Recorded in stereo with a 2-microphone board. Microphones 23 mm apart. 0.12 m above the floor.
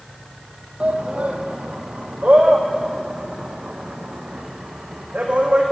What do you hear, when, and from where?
0.8 s a shout: 70° right (ahead or behind), 3.5 m; by 5.6 s 65° right (ahead or behind), 6 m